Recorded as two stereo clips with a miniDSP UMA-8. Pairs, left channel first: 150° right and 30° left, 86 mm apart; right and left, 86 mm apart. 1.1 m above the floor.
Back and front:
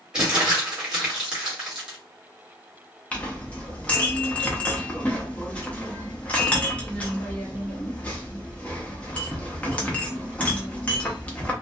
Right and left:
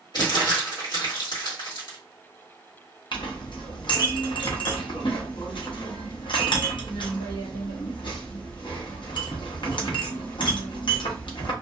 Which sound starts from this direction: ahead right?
Crumpling, at 0.1 s.